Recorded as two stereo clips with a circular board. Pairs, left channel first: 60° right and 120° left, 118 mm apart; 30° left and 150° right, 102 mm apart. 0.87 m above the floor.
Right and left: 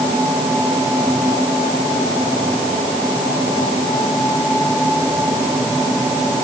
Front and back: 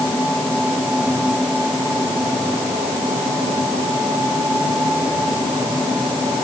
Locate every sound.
Only background noise.